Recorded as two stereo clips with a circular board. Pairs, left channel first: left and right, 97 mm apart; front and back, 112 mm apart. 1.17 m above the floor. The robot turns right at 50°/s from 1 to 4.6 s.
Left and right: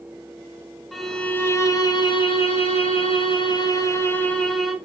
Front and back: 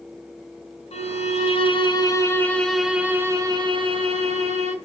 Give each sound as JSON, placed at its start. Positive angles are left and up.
{"t": 0.9, "sound": "a violin", "azimuth_deg": 0, "distance_m": 1.8}